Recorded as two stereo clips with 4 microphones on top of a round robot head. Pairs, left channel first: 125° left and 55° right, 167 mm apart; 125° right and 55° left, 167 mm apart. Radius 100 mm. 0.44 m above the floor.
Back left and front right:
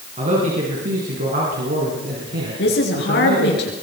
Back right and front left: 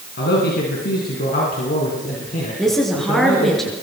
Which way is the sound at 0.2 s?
105° right.